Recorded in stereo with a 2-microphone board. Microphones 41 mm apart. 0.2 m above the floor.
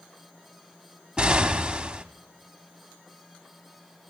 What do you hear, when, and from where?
1.2 s an explosion: 25° right (ahead or behind), 0.7 m